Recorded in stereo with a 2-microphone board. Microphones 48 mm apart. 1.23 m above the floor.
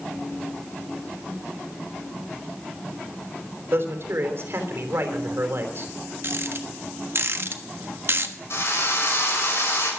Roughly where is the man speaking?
Right.